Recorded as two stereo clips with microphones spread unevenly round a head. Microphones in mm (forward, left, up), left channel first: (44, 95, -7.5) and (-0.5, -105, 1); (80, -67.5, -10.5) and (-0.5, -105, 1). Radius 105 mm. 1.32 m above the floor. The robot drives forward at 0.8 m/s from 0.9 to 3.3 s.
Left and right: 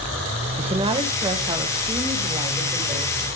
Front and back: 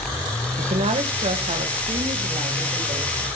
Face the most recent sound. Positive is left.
turn(degrees=-175)